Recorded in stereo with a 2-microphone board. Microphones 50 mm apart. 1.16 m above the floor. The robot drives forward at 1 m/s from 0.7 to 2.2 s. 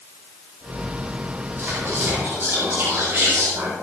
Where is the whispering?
40° right (ahead or behind), 9 m; by 3.7 s 45° right (ahead or behind), 8.5 m.